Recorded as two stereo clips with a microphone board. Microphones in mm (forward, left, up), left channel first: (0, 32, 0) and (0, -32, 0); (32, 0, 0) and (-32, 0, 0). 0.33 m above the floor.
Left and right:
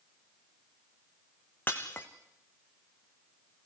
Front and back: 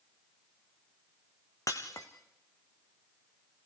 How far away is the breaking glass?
About 2.5 m.